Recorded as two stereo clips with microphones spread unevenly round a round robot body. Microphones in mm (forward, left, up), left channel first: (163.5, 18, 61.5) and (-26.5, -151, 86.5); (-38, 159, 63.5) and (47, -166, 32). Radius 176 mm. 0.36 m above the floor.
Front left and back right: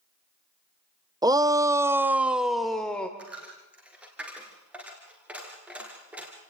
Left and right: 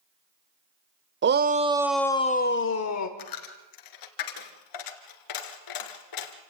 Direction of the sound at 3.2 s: 135° left.